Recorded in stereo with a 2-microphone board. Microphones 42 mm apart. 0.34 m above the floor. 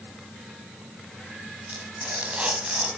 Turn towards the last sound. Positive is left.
turn(degrees=-30)  # may be behind; listen again after turning